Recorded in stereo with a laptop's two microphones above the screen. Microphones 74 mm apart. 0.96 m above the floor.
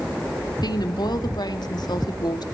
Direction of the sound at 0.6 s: 65° left (ahead or behind).